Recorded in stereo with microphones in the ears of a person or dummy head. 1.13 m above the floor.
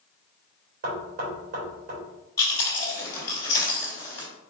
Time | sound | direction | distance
0.8 | knocking | 50° right (ahead or behind) | 2.5 m
2.4 | chewing | 15° left (ahead or behind) | 3 m